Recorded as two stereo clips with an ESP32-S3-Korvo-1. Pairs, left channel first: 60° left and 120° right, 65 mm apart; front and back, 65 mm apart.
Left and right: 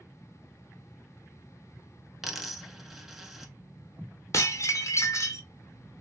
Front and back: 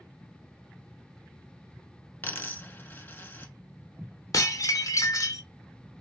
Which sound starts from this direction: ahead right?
A dropped coin, at 2.2 s.